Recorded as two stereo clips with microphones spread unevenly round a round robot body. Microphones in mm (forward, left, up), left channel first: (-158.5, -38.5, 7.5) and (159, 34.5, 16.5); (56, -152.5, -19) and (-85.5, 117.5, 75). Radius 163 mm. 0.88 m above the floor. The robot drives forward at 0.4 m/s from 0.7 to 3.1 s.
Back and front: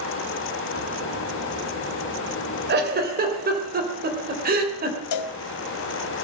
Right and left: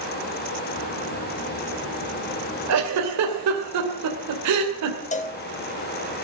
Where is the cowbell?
130° right, 0.8 m.